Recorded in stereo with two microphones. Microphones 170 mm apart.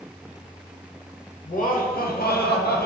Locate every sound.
1.4 s laughter: 50° left (ahead or behind), 0.9 m; by 2.9 s 65° left (ahead or behind), 0.8 m